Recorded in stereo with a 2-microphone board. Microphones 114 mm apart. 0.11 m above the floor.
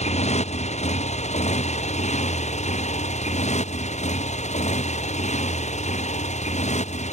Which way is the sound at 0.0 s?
75° left (ahead or behind).